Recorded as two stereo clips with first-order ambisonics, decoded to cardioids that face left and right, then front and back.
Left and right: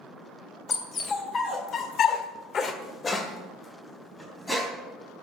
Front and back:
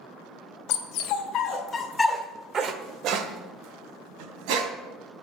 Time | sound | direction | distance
0.7 | a dog barking | 25° left | 2 m